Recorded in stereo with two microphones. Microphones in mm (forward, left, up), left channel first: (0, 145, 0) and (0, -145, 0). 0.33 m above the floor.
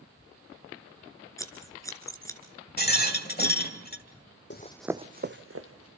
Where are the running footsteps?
40° left (ahead or behind), 0.7 m; by 5.9 s 55° right (ahead or behind), 1.8 m.